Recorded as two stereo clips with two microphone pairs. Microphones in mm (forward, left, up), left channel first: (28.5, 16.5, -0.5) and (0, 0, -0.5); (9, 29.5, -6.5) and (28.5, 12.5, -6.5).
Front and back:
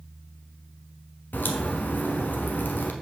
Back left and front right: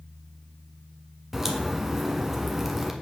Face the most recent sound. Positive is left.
turn(degrees=30)